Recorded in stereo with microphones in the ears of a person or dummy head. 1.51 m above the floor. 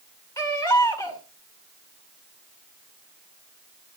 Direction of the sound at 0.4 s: 10° left (ahead or behind).